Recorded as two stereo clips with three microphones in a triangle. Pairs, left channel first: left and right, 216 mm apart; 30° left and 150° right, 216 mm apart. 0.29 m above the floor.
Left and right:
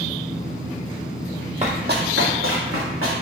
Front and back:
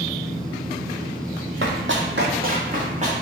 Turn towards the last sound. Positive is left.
turn(degrees=-90)